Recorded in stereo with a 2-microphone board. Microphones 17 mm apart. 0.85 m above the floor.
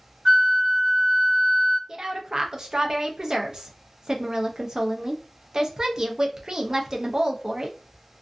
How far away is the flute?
About 1.5 m.